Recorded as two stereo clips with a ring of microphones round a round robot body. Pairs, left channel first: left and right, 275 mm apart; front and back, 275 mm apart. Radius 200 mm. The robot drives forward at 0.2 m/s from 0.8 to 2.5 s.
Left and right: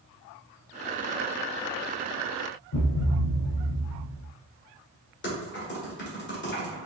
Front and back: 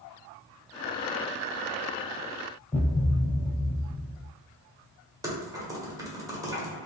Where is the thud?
85° left, 1.2 m.